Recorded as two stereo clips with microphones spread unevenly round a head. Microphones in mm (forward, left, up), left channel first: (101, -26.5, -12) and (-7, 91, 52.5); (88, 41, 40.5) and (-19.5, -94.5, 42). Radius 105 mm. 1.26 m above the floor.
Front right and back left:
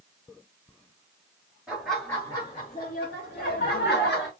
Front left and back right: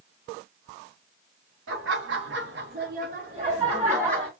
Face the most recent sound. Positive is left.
turn(degrees=-50)